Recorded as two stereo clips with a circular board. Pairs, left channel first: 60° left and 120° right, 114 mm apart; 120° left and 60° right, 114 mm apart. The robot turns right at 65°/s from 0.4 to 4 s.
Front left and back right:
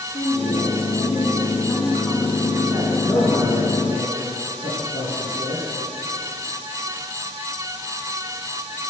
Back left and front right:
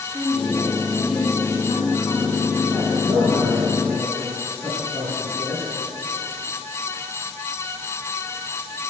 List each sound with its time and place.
0.1 s a woman speaking: 40° left, 3 m; by 3.0 s 155° right, 3 m
3.0 s a man speaking: 15° right, 4 m; by 5.6 s 45° left, 4 m